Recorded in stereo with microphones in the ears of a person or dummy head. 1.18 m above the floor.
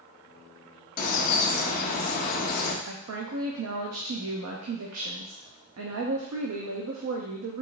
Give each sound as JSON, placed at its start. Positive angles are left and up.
{"t": 1.0, "sound": "a bird", "side_deg": 45, "distance_m": 0.8}
{"t": 2.9, "sound": "a woman speaking", "side_deg": -80, "distance_m": 0.7}